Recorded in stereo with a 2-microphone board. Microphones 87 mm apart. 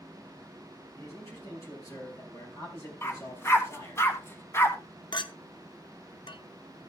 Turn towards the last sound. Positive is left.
turn(degrees=60)  # may be behind; listen again after turning